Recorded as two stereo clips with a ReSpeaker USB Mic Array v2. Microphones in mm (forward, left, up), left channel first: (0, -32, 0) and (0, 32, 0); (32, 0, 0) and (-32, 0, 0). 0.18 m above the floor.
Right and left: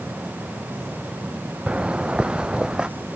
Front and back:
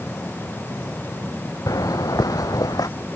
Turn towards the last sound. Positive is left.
turn(degrees=10)